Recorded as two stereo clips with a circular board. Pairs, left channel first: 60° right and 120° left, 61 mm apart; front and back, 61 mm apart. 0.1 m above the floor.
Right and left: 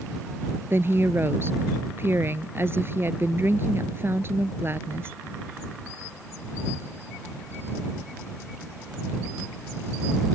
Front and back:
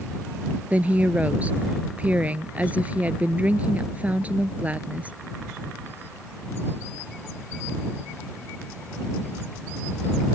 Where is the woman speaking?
130° left.